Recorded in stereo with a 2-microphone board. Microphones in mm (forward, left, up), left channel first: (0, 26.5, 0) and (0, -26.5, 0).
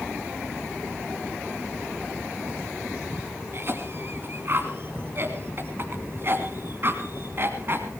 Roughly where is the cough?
Right.